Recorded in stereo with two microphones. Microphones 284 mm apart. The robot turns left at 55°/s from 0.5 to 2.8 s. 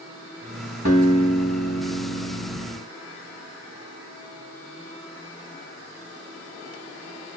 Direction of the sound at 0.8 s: 150° right.